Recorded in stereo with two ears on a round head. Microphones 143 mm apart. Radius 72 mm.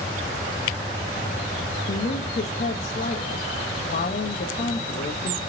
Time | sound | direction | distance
1.9 | a woman speaking | 50° left (ahead or behind) | 1.2 m